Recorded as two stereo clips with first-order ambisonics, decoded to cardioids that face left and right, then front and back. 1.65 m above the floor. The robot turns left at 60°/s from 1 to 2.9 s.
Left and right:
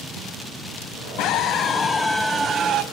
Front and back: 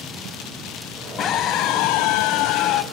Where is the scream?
50° left, 1.0 m; by 2.8 s 45° right, 1.0 m.